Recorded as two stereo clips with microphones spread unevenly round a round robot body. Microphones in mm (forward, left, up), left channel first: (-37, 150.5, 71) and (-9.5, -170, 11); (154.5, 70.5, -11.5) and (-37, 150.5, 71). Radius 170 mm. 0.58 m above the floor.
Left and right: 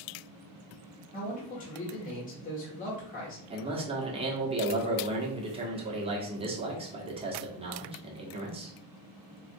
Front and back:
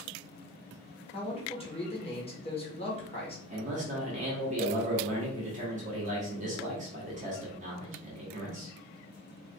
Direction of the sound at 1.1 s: 25° left.